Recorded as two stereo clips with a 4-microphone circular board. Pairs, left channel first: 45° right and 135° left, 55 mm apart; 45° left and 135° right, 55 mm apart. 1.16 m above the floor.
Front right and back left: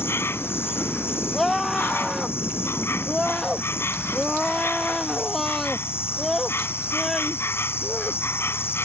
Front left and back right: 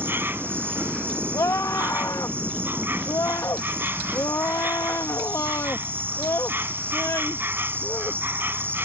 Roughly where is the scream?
Ahead left.